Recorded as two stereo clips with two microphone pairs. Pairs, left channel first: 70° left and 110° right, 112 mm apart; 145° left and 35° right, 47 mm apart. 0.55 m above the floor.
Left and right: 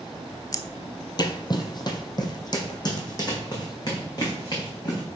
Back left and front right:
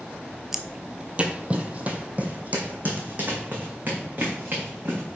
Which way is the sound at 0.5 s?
45° left.